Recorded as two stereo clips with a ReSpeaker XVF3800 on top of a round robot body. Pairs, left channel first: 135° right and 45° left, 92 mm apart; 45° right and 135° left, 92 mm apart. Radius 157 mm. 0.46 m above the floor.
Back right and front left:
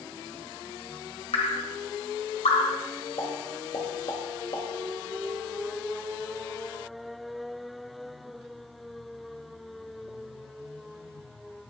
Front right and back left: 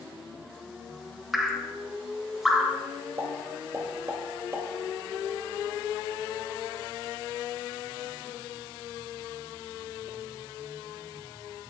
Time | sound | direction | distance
1.3 | dripping | 140° right | 1.2 m
3.2 | a pop | 165° right | 2 m